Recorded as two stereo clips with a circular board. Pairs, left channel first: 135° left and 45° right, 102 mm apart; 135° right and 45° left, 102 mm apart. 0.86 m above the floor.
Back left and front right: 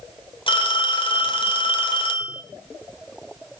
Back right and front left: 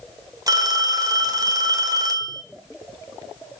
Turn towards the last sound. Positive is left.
turn(degrees=100)